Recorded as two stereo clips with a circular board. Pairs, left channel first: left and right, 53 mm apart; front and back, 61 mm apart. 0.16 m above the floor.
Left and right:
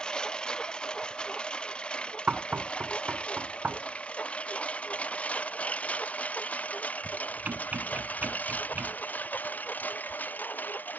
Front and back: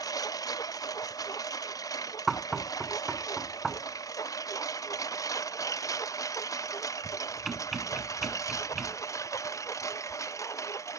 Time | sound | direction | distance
0.0 | a lawn mower | 15° left | ?
2.3 | knocking | 95° right | ?